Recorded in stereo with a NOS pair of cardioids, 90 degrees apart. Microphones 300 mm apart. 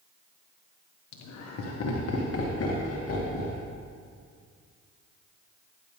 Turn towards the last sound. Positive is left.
turn(degrees=50)